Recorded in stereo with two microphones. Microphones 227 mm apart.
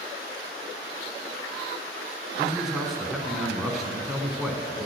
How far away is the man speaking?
About 1.6 m.